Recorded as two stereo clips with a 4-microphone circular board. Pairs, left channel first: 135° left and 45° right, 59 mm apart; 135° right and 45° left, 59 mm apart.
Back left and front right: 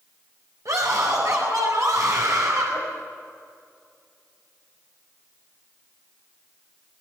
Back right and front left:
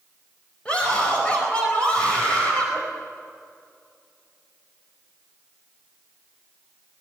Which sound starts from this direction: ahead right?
A scream, at 0.7 s.